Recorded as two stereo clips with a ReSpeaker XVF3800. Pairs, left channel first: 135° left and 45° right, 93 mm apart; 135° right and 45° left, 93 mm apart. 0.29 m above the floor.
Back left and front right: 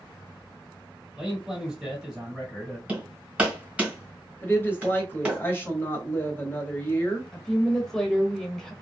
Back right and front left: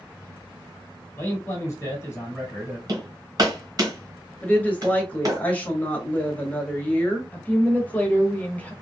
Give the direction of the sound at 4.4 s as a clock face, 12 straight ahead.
6 o'clock.